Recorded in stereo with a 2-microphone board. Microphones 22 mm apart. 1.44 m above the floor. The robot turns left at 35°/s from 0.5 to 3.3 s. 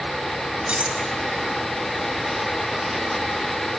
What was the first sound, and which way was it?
Cutlery clinking, 70° right (ahead or behind).